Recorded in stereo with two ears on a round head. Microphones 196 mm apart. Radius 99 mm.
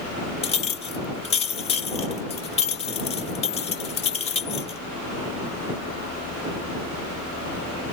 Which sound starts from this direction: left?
A clink, at 0.4 s.